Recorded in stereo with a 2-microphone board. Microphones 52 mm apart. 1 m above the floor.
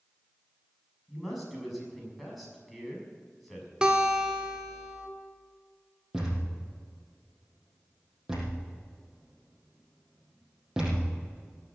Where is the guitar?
15° right (ahead or behind), 1.7 m.